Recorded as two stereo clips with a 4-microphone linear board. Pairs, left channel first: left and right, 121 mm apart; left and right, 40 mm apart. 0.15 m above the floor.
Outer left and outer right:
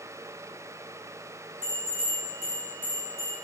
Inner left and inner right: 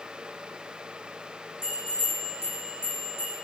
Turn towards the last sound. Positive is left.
turn(degrees=80)